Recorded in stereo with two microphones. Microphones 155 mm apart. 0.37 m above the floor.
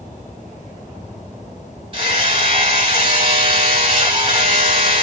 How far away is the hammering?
About 2.5 m.